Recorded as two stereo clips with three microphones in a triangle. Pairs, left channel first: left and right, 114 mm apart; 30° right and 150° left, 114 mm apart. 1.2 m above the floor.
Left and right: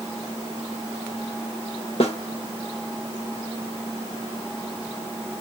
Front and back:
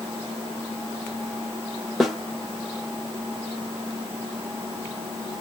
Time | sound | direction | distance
2.0 | a snare drum | 60° left | 1.2 m